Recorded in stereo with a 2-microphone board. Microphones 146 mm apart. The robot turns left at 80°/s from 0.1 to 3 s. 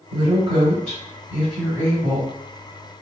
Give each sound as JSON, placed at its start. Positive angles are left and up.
{"t": 0.1, "sound": "a woman speaking", "side_deg": -25, "distance_m": 1.9}